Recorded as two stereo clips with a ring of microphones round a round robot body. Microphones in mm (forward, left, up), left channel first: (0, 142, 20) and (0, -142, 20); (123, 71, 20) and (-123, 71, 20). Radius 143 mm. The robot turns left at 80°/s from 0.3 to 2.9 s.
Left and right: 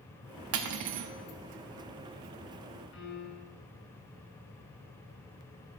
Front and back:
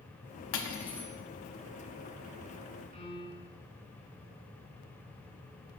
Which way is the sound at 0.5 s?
45° right.